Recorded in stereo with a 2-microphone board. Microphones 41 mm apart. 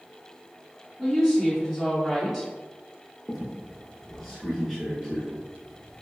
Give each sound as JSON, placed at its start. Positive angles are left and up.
{"t": 1.0, "sound": "a woman speaking", "side_deg": -10, "distance_m": 1.6}
{"t": 3.3, "sound": "a squeak", "side_deg": 0, "distance_m": 0.8}